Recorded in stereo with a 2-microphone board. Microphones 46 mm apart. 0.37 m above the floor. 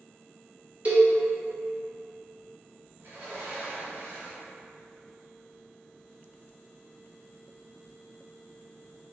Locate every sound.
0.8 s a cowbell: 30° right (ahead or behind), 1.1 m
3.0 s a sliding door: 50° right (ahead or behind), 2.0 m